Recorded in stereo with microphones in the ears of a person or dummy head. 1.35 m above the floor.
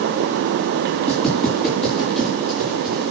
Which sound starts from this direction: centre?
Footsteps, at 1.1 s.